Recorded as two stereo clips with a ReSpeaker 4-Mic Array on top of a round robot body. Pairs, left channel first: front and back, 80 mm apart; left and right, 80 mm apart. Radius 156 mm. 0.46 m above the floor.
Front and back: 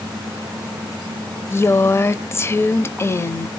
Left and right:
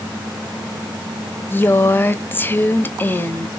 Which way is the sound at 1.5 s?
40° left.